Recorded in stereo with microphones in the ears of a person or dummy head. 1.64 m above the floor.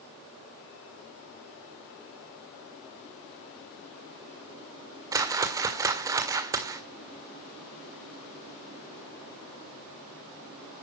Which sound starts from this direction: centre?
A whoosh, at 5.1 s.